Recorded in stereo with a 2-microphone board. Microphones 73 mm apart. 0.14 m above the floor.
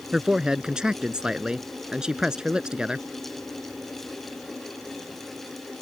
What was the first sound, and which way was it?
A man speaking, 10° right (ahead or behind).